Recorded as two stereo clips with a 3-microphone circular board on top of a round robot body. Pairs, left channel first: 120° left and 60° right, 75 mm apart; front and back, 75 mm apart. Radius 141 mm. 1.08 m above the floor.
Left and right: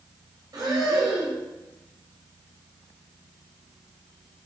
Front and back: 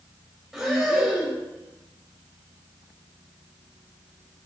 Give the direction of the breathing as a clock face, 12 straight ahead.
3 o'clock.